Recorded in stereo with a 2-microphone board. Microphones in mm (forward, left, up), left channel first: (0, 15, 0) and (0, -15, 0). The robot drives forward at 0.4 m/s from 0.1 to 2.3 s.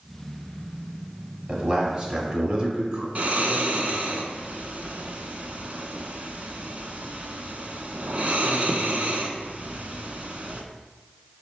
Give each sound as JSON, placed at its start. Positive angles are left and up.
{"t": 1.5, "sound": "a man speaking", "side_deg": -30, "distance_m": 1.1}
{"t": 3.1, "sound": "snoring", "side_deg": -55, "distance_m": 0.6}